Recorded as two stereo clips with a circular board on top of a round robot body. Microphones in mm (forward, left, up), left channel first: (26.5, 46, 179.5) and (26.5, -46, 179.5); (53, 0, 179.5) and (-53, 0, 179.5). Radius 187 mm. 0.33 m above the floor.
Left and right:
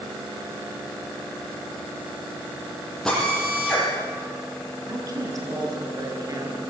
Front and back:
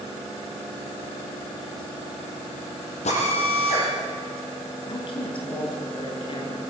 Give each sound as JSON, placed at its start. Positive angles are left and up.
{"t": 3.0, "sound": "a drill", "azimuth_deg": 5, "distance_m": 10.0}
{"t": 4.9, "sound": "a woman speaking", "azimuth_deg": -40, "distance_m": 6.5}